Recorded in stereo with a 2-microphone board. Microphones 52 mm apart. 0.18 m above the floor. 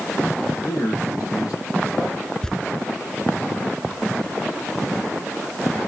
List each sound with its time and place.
0.6 s a man speaking: 80° left, 7 m
2.4 s tearing paper: 10° left (ahead or behind), 0.8 m